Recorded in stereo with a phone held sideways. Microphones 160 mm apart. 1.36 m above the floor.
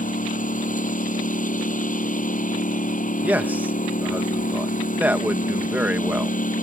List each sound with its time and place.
0.0 s a lawn mower: 60° left (ahead or behind)
3.2 s a man speaking: 10° right (ahead or behind)